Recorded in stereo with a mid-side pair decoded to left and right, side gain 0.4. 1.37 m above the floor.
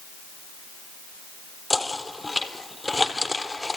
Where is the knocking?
20° left, 3.5 m.